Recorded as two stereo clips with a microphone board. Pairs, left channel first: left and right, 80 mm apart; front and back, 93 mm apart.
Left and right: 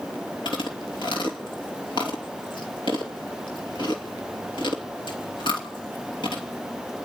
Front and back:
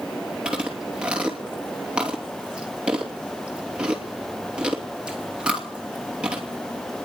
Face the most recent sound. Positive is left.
turn(degrees=100)